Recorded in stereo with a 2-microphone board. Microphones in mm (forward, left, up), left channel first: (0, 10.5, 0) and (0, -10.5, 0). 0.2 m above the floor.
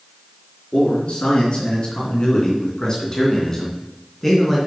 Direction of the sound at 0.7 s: 60° left (ahead or behind).